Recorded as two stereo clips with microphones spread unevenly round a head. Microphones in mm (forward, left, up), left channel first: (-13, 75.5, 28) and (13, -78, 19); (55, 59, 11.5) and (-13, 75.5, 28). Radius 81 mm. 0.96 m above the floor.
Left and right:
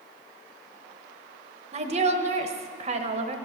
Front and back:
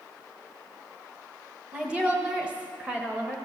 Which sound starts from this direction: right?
A woman speaking, at 1.7 s.